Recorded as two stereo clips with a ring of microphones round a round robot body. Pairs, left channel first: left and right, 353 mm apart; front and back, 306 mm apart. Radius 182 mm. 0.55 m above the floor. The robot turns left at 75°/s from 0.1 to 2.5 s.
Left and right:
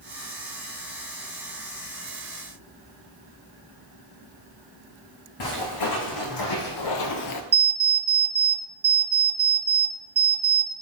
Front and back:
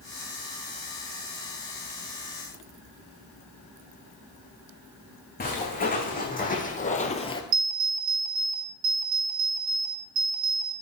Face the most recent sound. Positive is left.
turn(degrees=-160)